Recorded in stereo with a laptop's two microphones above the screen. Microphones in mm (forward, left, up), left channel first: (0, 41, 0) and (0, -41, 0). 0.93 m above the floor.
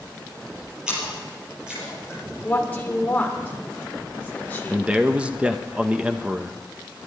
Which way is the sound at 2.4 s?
20° left (ahead or behind).